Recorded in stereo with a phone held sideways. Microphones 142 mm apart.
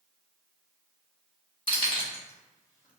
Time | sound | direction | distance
1.7 | keys jangling | 30° left (ahead or behind) | 1.4 m